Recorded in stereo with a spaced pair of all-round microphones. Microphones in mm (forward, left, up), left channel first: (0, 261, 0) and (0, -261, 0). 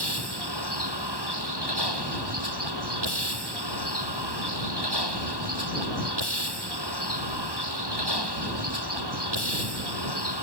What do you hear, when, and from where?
0.0 s a vehicle: 50° right (ahead or behind)